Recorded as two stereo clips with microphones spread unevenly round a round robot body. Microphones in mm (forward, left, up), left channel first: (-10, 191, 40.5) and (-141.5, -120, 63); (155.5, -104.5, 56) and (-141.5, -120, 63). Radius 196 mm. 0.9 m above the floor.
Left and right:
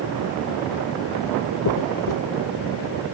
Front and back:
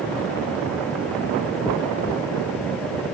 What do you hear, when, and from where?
1.6 s a dropped coin: 90° left, 0.8 m